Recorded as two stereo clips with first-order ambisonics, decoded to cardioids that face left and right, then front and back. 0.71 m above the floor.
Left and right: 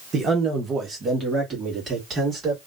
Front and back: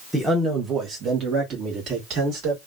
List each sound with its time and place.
0.1 s a man speaking: 90° right, 0.8 m; by 2.6 s 150° right, 1.6 m